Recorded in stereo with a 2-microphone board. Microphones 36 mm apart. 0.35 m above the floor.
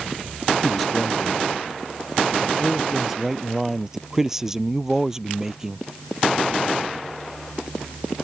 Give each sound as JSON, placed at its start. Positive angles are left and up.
{"t": 0.6, "sound": "a man speaking", "side_deg": 0}